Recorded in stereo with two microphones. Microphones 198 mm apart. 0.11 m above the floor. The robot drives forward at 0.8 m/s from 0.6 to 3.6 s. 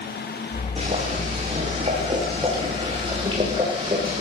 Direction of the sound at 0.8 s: 35° right (ahead or behind).